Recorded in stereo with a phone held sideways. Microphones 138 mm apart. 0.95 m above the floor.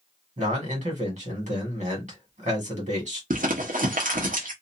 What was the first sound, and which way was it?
A man speaking, 60° right (ahead or behind).